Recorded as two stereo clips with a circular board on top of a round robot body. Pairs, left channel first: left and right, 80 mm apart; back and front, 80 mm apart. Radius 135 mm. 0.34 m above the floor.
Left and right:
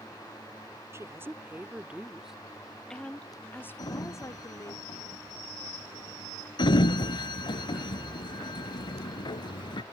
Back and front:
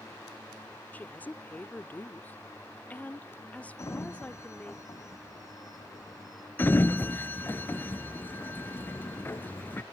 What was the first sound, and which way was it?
A woman speaking, 120° right.